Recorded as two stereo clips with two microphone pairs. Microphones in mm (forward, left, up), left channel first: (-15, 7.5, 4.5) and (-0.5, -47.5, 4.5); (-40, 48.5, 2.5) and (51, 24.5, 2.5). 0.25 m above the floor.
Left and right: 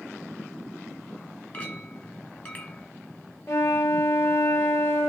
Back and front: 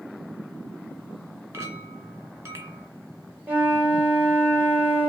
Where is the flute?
55° left, 3 m.